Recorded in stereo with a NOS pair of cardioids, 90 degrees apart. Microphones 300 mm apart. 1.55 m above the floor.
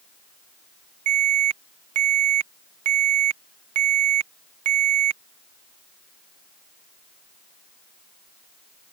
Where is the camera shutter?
No camera shutter in this recording.